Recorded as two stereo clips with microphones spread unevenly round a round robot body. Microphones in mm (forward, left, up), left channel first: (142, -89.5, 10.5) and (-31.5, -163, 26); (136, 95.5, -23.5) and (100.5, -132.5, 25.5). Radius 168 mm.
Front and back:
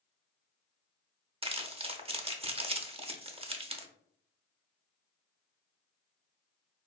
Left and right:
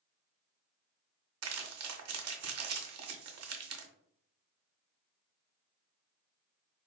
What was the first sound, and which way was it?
Crumpling, 95° right.